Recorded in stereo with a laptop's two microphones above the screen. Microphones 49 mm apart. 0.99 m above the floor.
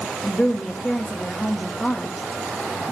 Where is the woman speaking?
20° left (ahead or behind), 1.7 m.